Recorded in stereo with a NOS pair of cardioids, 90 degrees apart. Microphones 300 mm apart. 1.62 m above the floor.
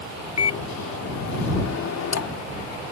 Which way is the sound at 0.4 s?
60° left.